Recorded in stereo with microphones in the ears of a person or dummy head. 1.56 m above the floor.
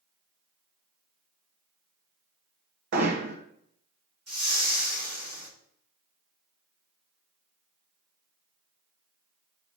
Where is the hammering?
55° right (ahead or behind), 1.4 m.